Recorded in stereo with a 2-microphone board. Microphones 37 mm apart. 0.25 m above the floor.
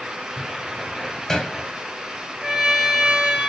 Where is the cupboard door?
10° left (ahead or behind), 1.4 m.